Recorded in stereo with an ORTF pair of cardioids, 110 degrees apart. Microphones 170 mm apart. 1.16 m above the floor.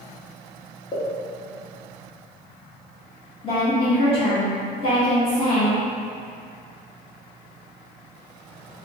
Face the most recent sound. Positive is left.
turn(degrees=35)